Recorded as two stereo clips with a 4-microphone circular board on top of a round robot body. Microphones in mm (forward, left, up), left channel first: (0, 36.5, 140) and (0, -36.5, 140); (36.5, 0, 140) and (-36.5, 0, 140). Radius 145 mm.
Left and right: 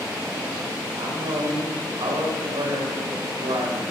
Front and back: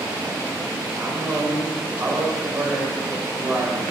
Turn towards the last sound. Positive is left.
turn(degrees=-115)